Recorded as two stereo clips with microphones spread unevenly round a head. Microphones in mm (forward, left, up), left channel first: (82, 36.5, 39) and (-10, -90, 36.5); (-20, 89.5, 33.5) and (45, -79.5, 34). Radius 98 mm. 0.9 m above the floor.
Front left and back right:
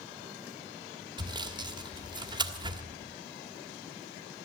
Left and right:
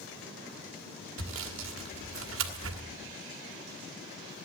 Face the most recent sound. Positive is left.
turn(degrees=-65)